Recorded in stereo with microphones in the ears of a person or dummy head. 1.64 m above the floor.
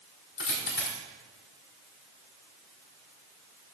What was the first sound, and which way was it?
A dropped coin, 60° left (ahead or behind).